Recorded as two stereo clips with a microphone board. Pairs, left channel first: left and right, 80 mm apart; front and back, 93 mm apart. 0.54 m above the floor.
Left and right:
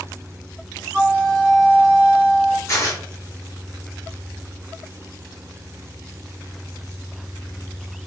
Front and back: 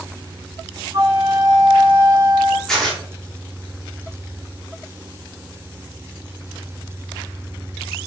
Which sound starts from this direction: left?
Tearing paper, at 2.7 s.